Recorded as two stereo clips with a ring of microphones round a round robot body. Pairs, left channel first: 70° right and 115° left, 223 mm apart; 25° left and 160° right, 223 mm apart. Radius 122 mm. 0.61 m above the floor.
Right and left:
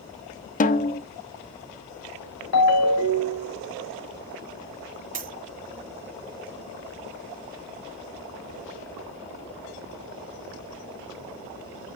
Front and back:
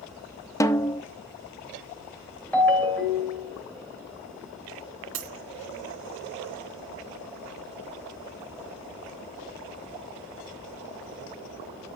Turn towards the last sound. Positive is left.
turn(degrees=170)